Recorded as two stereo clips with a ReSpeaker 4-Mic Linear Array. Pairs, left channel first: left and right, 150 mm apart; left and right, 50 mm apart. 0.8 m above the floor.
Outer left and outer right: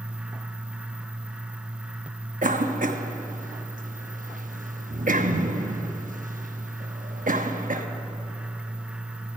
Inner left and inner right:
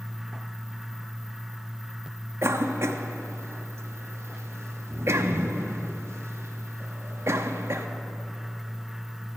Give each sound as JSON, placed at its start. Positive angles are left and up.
{"t": 2.4, "sound": "a cough", "side_deg": -60, "distance_m": 1.0}